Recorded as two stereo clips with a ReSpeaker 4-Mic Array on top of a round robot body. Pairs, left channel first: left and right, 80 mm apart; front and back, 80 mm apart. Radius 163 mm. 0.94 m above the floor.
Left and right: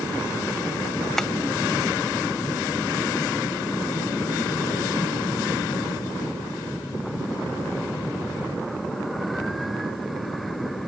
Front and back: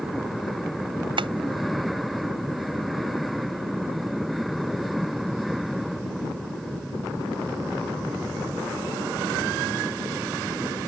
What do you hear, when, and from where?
1.2 s tapping: 175° left